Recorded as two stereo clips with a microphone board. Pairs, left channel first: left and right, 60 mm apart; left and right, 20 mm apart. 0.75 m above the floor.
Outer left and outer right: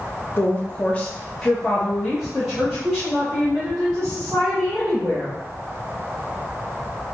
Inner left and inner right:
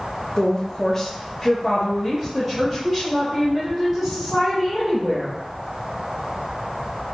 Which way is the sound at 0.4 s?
35° left (ahead or behind).